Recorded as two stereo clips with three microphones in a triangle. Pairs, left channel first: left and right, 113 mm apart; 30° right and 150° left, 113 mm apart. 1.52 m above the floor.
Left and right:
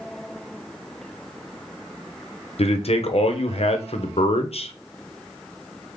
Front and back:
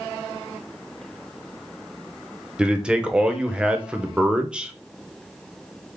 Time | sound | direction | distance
2.6 | a man speaking | 70° left | 0.8 m